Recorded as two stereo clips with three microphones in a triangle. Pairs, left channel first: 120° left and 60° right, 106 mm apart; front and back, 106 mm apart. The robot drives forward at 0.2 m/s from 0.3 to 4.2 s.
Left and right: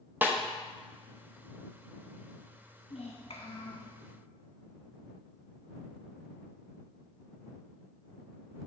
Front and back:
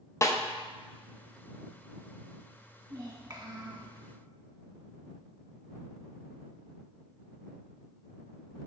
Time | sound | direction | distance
0.2 | a snare drum | 15° right | 0.6 m
2.9 | a child speaking | 130° left | 1.2 m